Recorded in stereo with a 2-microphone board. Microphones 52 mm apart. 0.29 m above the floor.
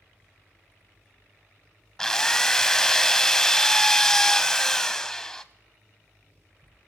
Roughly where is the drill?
Centre.